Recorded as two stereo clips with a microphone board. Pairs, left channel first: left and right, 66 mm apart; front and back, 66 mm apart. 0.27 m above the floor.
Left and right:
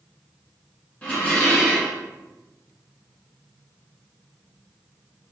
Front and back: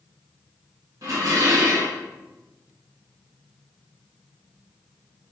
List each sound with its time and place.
1.0 s dishes clattering: 160° left, 1.7 m